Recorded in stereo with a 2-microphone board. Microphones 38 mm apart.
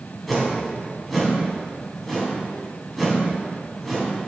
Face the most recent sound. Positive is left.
turn(degrees=0)  # may be behind; listen again after turning